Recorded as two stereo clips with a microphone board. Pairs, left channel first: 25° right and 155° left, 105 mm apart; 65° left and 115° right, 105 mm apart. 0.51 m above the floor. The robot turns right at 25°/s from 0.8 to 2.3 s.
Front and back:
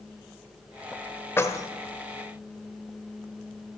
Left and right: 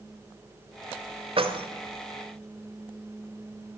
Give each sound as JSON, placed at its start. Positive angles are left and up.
{"t": 1.4, "sound": "keys jangling", "azimuth_deg": -90, "distance_m": 1.1}